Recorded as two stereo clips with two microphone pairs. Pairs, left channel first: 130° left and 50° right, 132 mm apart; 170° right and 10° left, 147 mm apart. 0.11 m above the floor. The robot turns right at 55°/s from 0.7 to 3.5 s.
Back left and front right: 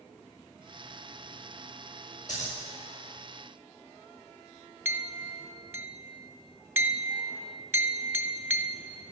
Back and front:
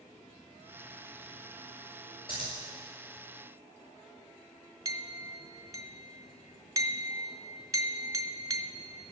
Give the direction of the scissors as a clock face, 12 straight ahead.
7 o'clock.